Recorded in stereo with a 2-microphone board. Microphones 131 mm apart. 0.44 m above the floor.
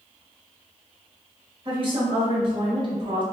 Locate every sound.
1.6 s a woman speaking: 45° right (ahead or behind), 1.6 m